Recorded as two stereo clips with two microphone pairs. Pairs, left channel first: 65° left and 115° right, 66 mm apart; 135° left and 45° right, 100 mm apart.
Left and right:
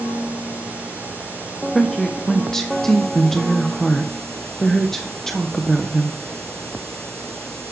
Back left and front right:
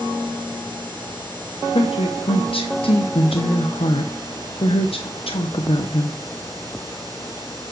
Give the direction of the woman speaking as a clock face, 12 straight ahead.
7 o'clock.